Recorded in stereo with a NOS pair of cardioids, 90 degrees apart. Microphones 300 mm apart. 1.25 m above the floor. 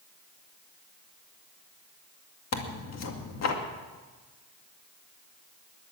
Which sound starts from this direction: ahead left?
Tearing paper, at 2.5 s.